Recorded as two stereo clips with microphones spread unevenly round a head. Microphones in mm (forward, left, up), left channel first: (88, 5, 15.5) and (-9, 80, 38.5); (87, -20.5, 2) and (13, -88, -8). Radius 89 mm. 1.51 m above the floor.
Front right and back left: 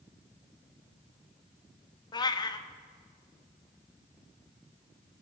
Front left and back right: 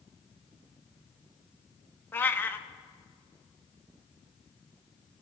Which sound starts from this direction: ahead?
A cat meowing, at 2.1 s.